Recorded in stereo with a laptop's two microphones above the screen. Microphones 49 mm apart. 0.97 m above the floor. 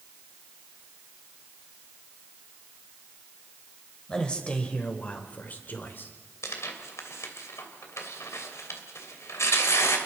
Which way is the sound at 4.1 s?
15° left (ahead or behind).